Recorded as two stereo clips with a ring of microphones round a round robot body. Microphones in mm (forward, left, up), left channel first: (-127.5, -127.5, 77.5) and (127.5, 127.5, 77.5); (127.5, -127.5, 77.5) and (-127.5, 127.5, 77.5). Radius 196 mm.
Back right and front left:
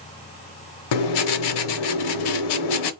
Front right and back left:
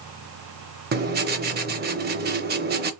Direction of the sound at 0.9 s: 160° right.